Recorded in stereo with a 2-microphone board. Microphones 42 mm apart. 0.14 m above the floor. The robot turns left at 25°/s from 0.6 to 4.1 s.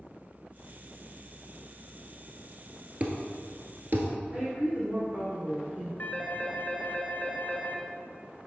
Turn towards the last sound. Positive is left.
turn(degrees=40)  # may be behind; listen again after turning